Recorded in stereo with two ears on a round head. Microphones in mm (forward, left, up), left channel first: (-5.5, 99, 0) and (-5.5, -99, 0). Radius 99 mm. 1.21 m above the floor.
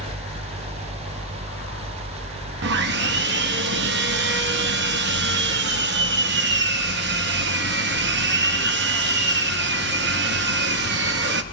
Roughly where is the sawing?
Right.